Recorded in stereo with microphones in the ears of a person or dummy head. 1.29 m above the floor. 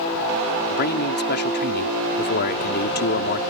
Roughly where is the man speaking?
Left.